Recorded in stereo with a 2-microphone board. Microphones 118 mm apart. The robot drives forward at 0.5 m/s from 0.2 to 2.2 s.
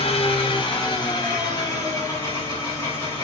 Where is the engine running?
50° left (ahead or behind), 0.8 m; by 3.2 s 25° left (ahead or behind), 1.6 m.